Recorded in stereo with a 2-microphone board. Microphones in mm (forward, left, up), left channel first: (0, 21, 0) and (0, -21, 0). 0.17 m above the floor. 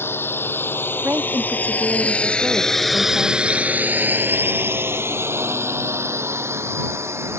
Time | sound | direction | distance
0.0 | a drone | 60° left (ahead or behind) | ?
1.0 | a woman speaking | 50° right (ahead or behind) | ?